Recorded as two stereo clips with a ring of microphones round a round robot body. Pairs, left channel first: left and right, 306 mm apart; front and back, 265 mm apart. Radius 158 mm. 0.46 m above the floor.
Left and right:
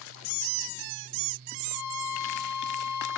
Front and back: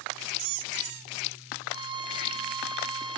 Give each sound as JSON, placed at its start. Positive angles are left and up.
{"t": 1.7, "sound": "a violin", "azimuth_deg": 110, "distance_m": 0.7}